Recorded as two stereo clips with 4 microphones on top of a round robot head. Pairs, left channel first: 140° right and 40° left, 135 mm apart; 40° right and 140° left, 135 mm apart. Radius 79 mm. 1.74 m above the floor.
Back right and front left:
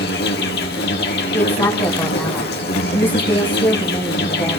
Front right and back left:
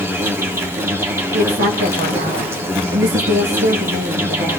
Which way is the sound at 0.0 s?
145° right.